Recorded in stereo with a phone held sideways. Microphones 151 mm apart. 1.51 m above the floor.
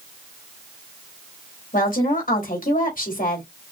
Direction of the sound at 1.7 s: 70° left (ahead or behind).